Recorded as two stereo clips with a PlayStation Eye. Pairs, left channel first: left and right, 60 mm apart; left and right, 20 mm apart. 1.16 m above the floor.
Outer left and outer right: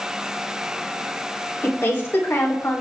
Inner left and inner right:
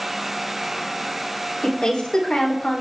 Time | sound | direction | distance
1.6 | a woman speaking | 35° left (ahead or behind) | 3 m